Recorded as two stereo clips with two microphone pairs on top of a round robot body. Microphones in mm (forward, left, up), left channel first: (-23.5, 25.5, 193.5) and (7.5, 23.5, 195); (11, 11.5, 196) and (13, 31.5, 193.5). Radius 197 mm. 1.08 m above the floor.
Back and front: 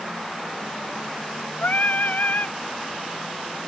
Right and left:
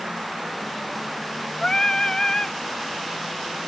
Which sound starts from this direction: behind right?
Singing, at 1.6 s.